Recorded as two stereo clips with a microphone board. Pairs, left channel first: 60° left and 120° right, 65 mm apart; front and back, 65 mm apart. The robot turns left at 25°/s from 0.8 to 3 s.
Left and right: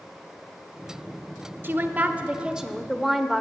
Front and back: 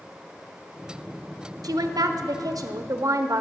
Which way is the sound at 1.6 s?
175° right.